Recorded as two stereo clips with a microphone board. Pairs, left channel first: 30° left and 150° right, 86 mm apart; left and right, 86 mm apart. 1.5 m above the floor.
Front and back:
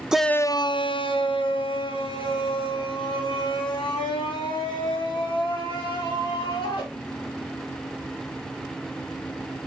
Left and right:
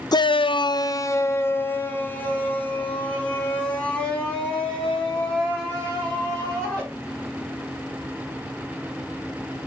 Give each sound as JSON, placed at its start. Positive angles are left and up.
{"t": 0.1, "sound": "a shout", "azimuth_deg": 130, "distance_m": 0.6}